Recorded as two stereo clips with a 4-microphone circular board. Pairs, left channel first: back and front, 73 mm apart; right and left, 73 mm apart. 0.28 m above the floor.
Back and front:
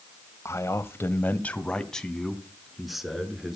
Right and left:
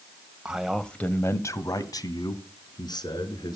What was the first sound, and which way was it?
A man speaking, 160° left.